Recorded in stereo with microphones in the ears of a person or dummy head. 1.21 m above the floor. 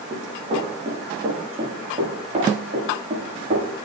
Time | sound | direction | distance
0.1 | running footsteps | 30° right (ahead or behind) | 10 m